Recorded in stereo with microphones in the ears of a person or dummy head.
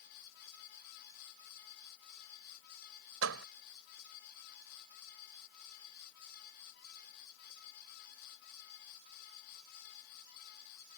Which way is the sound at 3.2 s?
80° right.